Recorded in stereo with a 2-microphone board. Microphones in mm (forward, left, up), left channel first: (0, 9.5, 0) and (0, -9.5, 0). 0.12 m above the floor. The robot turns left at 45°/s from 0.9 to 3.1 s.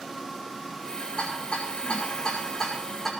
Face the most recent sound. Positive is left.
turn(degrees=15)  # may be behind; listen again after turning